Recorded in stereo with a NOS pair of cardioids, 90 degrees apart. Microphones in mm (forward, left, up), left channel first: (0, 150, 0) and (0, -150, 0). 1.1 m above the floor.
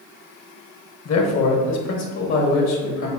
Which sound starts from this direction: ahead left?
A man speaking, at 1.1 s.